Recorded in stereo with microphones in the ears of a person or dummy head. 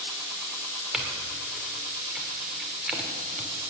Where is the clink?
5° right (ahead or behind), 2.5 m.